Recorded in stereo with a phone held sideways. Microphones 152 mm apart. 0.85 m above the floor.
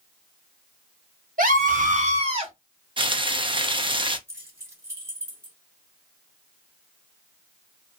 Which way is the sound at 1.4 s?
65° right (ahead or behind).